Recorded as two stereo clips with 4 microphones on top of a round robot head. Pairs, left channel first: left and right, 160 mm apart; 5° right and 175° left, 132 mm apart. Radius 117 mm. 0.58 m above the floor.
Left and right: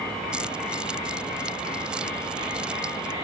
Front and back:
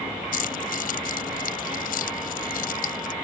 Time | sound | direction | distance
0.3 | keys jangling | 5° right | ?